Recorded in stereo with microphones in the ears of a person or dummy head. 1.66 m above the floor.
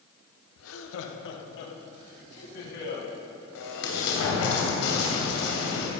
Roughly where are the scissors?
No scissors in this recording.